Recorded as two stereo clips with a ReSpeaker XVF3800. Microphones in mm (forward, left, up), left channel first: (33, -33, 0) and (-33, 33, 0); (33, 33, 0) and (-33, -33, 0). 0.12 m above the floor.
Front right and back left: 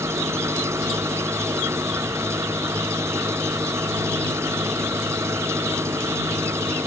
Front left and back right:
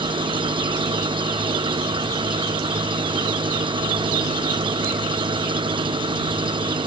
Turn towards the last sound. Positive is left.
turn(degrees=-165)